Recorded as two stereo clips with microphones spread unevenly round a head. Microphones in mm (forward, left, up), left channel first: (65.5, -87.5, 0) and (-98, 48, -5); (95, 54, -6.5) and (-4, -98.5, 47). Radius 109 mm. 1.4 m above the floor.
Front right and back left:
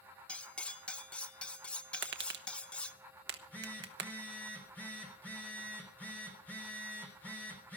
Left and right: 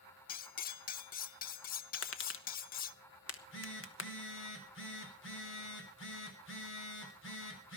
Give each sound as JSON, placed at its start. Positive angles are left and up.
{"t": 0.3, "sound": "cutlery clinking", "azimuth_deg": 35, "distance_m": 0.5}
{"t": 1.9, "sound": "tapping", "azimuth_deg": 95, "distance_m": 1.1}
{"t": 3.3, "sound": "a phone buzzing", "azimuth_deg": 45, "distance_m": 3.5}